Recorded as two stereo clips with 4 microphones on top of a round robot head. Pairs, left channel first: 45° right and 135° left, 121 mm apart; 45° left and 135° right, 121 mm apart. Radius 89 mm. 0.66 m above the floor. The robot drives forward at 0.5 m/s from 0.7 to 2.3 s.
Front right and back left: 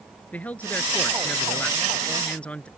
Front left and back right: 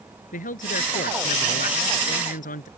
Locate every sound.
0.3 s a man speaking: 35° left